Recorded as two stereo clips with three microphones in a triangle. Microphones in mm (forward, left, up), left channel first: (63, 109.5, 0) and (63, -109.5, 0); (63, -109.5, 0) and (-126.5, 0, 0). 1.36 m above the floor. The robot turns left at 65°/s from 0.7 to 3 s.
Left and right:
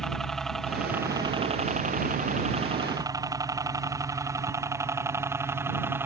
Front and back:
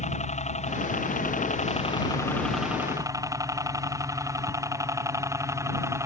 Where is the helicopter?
5° left; by 6.1 s 155° right.